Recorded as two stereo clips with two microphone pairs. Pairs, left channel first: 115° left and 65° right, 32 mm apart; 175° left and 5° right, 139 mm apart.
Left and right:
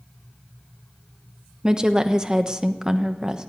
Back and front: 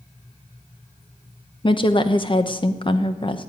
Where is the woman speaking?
130° right, 1.0 m.